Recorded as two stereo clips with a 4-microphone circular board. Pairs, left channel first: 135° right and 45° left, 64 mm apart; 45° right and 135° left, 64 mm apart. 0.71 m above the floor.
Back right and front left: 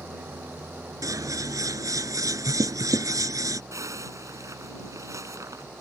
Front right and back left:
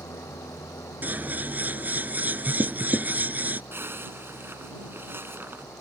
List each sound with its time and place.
0.0 s an engine running: 15° right
1.0 s scissors: 70° left
3.7 s a zipper: 80° left